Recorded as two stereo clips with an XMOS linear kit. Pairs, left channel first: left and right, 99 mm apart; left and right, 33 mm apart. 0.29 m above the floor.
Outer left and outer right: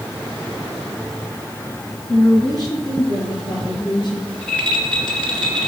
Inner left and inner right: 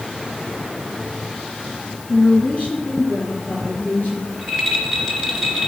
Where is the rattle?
10° left (ahead or behind), 2.5 m.